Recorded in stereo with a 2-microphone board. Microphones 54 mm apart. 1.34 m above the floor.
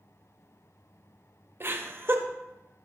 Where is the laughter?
45° right (ahead or behind), 0.7 m.